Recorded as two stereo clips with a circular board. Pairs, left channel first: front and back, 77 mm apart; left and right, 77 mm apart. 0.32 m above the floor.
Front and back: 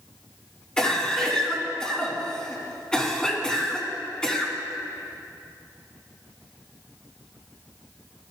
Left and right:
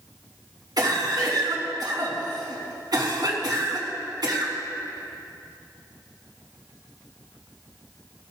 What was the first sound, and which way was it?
A cough, 80° right.